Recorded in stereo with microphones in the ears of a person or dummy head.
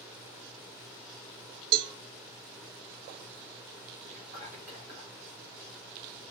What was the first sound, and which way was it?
A cowbell, 55° right (ahead or behind).